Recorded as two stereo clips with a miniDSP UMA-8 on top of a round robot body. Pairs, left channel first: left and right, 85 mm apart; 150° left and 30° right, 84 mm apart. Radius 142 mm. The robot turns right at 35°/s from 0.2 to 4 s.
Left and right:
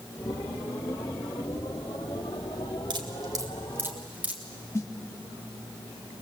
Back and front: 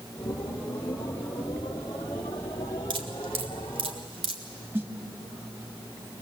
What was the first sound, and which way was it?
Dripping, 55° right.